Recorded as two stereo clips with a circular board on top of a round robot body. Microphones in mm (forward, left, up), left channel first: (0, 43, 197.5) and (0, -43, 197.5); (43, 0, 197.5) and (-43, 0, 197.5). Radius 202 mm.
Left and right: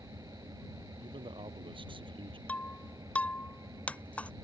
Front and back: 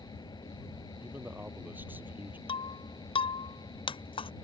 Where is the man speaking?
110° right.